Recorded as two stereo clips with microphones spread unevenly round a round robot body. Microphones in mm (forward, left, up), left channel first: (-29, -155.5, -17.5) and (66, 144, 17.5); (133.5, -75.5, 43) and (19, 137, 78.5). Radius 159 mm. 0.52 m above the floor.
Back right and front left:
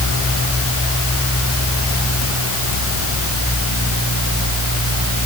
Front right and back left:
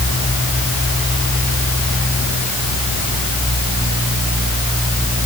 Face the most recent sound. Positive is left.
No sound to turn to.